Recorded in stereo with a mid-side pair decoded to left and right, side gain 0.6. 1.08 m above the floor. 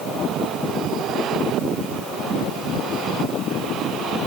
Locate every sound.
Only background noise.